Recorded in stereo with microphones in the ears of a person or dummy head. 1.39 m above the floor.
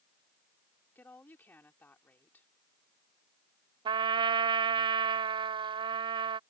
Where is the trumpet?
30° right (ahead or behind).